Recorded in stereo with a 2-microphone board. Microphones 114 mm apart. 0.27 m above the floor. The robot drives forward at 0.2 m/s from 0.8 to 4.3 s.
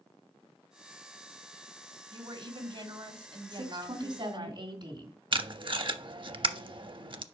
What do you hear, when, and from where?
2.1 s a woman speaking: 50° right (ahead or behind), 1.3 m
3.5 s a woman speaking: 45° right (ahead or behind), 2 m
5.3 s tape being pulled: 45° right (ahead or behind), 0.5 m